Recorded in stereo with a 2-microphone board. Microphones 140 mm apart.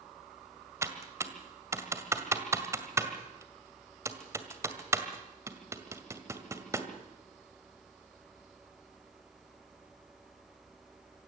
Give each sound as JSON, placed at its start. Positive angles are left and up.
{"t": 0.8, "sound": "typing on a keyboard", "side_deg": -20, "distance_m": 2.0}